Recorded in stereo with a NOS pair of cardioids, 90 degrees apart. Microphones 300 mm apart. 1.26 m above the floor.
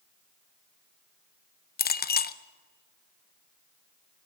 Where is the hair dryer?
No hair dryer in this recording.